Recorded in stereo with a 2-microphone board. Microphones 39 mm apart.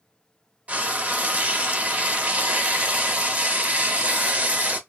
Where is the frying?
35° right (ahead or behind), 0.8 m.